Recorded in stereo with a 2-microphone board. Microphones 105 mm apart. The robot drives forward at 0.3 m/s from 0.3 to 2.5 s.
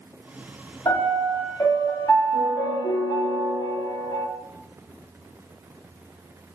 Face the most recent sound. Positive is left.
turn(degrees=45)  # may be behind; listen again after turning